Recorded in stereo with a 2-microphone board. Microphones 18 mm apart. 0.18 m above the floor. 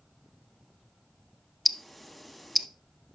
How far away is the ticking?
About 0.5 m.